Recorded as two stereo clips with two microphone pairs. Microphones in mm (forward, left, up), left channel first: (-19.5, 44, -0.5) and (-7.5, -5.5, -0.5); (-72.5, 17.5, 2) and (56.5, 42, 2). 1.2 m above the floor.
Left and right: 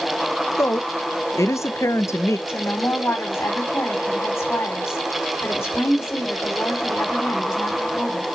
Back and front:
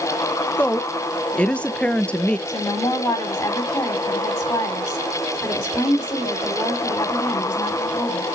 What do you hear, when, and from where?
0.6 s a woman speaking: 110° left, 0.7 m
2.5 s a woman speaking: 125° left, 3 m